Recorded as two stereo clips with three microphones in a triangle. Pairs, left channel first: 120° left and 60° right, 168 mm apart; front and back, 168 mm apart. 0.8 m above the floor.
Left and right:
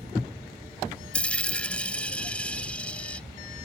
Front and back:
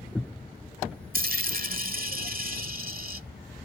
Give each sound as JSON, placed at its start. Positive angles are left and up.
{"t": 1.1, "sound": "a dropped coin", "azimuth_deg": -160}